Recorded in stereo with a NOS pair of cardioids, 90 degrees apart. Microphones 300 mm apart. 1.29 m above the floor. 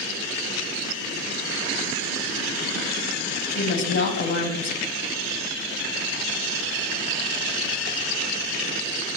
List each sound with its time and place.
3.5 s a woman speaking: 65° left, 2.5 m